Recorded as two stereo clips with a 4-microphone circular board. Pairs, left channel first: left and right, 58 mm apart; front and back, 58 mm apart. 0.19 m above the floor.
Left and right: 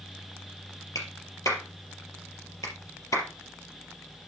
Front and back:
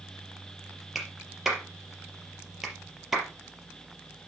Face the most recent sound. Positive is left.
turn(degrees=95)